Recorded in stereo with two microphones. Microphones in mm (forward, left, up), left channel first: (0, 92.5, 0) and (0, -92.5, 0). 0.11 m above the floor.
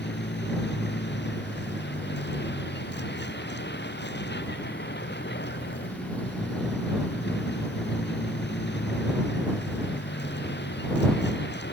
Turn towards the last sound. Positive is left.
turn(degrees=70)  # may be behind; listen again after turning